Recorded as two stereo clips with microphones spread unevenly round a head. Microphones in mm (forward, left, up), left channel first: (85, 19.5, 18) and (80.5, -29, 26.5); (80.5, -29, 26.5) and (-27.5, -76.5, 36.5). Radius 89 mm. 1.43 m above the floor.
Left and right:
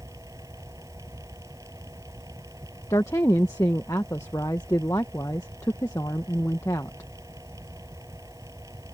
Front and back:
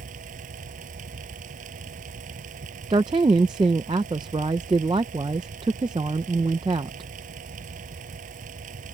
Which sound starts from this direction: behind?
A fan, at 0.0 s.